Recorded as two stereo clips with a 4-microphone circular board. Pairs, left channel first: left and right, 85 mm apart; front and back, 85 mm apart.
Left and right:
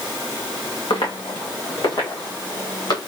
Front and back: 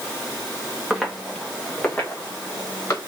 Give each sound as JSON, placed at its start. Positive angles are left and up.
{"t": 0.9, "sound": "footsteps", "azimuth_deg": 95, "distance_m": 1.1}